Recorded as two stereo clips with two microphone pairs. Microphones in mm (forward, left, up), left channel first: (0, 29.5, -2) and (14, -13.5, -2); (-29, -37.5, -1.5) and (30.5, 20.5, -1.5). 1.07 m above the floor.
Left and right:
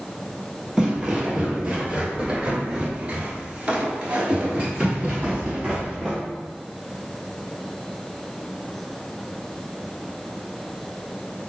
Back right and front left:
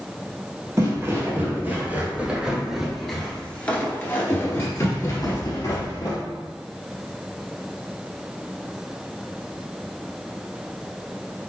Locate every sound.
0.8 s footsteps: straight ahead, 1.7 m; by 6.2 s 140° right, 1.8 m